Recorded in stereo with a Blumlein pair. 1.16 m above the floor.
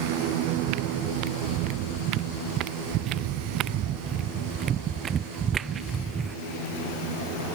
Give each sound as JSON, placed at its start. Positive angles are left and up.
{"t": 0.5, "sound": "footsteps", "azimuth_deg": -45}